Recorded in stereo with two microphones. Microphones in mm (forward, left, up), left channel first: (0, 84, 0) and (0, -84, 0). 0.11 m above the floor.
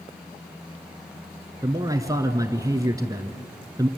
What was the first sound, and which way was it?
A man speaking, 20° right (ahead or behind).